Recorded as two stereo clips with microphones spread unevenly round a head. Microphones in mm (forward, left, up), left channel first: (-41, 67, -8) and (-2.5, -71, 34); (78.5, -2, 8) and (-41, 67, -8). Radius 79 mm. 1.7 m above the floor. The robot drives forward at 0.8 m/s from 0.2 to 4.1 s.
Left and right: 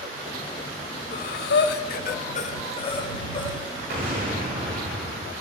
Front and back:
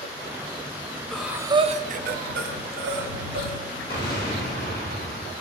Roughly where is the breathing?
Ahead left.